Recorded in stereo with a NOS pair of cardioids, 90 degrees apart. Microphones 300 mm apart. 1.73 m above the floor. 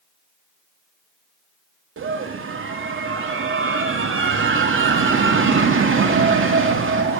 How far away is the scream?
About 3 m.